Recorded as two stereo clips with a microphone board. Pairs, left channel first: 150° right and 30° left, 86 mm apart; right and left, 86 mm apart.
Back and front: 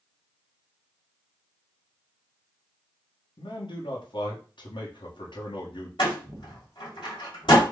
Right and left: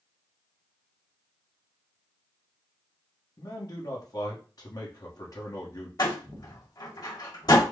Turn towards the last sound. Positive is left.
turn(degrees=-125)